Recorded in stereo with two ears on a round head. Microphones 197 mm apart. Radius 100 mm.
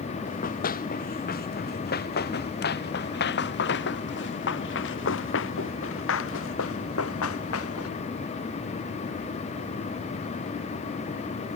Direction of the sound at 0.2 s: 45° left (ahead or behind).